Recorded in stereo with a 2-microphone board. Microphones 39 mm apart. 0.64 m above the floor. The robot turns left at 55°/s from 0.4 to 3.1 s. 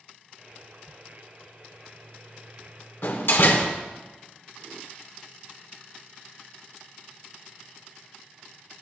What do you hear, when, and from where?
3.0 s a door slam: 70° left (ahead or behind), 1.3 m